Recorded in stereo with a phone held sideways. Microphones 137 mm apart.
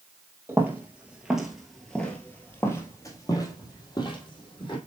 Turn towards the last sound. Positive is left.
turn(degrees=40)  # may be behind; listen again after turning